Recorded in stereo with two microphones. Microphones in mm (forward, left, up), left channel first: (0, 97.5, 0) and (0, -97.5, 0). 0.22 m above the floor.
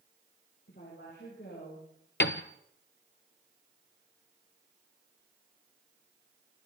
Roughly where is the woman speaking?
Left.